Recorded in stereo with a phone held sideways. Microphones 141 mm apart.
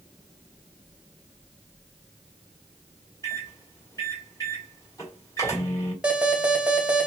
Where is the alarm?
10° right (ahead or behind), 1.6 m.